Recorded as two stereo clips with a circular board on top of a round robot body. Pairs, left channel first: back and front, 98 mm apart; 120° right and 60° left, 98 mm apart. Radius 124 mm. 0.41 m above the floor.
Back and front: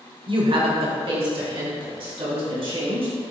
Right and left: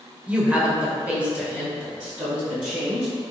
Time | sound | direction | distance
0.3 | a woman speaking | 15° right | 1.9 m